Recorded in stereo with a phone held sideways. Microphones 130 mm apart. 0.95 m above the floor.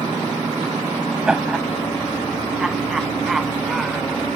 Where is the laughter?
5° right (ahead or behind); by 4.2 s centre (ahead or behind).